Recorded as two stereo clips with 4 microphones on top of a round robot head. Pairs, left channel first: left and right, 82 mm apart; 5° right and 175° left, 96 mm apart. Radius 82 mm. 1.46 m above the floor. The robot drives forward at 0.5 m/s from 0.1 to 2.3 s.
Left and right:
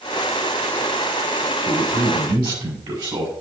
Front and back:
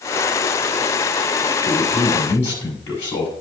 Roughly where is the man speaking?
Ahead right.